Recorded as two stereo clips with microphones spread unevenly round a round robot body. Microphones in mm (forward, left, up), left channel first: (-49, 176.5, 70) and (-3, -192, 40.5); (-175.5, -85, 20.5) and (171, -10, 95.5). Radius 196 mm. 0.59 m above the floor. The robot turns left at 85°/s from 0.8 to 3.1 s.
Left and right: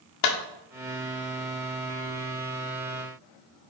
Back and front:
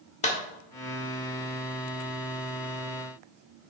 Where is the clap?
130° left, 1.5 m.